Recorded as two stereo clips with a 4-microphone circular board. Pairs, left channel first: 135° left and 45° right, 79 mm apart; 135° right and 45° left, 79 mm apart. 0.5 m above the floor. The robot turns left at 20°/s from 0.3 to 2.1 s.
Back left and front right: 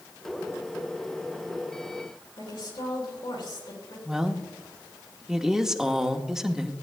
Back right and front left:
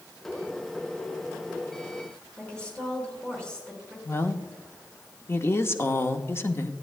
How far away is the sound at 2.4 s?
About 5 m.